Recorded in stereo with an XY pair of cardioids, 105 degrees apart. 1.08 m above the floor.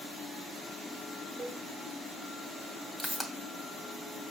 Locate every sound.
1.4 s a cowbell: 45° right, 1.6 m
3.0 s a pop: straight ahead, 2 m